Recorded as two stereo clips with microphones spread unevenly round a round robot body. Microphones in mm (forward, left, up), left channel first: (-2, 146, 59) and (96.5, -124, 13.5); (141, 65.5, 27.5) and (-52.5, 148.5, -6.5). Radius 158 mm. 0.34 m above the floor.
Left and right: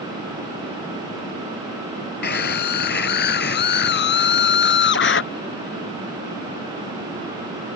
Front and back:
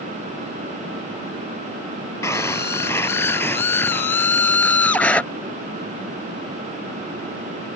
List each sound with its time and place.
2.2 s a scream: 55° left; by 5.2 s 60° left